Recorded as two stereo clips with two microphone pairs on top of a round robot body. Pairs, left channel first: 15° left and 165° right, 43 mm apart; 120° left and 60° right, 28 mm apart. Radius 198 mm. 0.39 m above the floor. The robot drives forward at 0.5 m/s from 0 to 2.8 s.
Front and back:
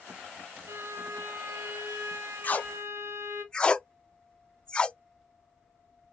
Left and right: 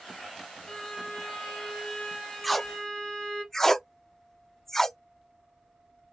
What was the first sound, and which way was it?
A violin, 170° right.